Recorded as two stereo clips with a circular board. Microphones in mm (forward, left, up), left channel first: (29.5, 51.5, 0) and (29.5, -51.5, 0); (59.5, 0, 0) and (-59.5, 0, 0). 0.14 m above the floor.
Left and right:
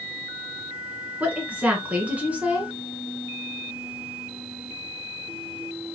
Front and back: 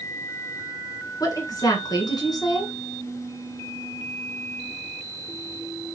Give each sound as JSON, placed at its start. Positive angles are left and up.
{"t": 1.2, "sound": "a woman speaking", "azimuth_deg": -25, "distance_m": 1.4}